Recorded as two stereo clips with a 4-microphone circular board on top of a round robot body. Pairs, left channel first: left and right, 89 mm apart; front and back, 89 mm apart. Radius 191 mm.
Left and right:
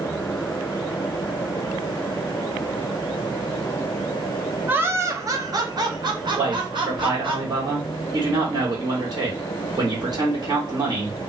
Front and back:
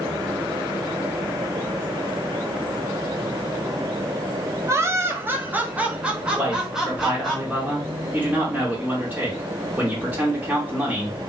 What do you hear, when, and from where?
4.7 s laughter: 145° right, 1.0 m; by 7.4 s 95° right, 1.8 m
6.4 s a man speaking: 110° right, 2 m